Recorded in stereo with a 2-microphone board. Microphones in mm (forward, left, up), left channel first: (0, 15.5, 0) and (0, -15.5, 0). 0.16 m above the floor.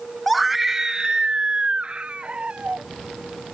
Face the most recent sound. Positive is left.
turn(degrees=-40)  # may be behind; listen again after turning